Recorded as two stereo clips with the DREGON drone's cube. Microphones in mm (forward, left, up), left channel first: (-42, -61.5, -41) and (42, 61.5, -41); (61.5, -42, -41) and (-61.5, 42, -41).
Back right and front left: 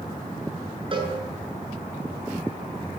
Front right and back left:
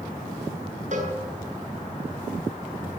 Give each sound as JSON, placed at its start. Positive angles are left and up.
{"t": 0.9, "sound": "a cowbell", "azimuth_deg": 110, "distance_m": 8.5}